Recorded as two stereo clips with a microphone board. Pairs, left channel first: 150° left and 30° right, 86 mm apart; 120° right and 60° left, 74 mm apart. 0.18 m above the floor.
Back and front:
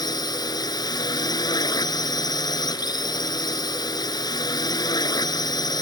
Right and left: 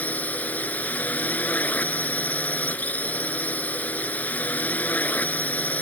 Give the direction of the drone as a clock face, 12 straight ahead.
6 o'clock.